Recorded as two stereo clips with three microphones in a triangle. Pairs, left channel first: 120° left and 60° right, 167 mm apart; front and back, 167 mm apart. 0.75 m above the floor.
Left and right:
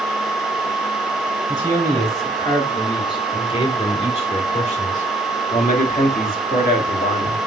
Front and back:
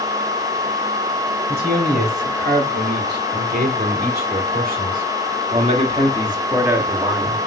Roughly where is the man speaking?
Behind.